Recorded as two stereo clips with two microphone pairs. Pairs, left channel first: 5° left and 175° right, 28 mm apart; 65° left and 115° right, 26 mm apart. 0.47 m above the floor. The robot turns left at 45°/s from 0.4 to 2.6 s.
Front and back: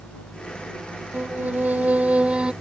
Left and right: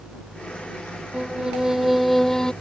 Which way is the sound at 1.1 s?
170° right.